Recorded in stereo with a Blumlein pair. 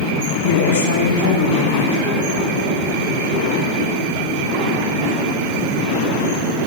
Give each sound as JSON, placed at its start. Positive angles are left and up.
{"t": 0.3, "sound": "a woman speaking", "azimuth_deg": 60, "distance_m": 4.5}